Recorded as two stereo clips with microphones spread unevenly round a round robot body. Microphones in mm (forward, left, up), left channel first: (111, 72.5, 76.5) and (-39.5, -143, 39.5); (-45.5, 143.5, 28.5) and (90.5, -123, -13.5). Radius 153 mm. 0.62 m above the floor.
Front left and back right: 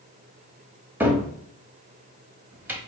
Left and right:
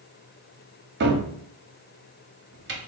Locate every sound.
1.0 s a cupboard door: 55° right, 0.8 m